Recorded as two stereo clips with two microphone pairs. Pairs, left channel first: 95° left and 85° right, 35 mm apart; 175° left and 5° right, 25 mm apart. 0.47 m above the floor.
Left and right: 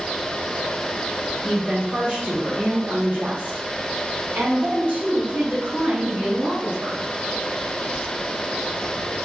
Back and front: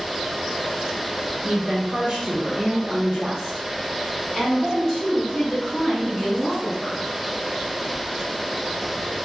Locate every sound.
1.4 s a woman speaking: 20° right, 1.2 m; by 7.0 s 135° right, 2.5 m